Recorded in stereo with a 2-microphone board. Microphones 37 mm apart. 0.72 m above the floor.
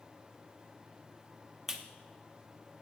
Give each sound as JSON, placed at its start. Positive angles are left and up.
{"t": 1.7, "sound": "a clap", "side_deg": -15, "distance_m": 0.7}